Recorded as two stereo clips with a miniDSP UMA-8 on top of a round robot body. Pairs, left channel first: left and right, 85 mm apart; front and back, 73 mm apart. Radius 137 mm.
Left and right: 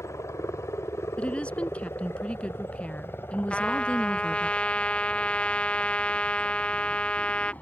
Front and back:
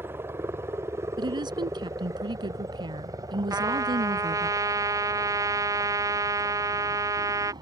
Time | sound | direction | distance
0.0 | a helicopter | 130° left | ?
1.2 | a woman speaking | 165° left | ?
3.5 | a trumpet | 160° left | ?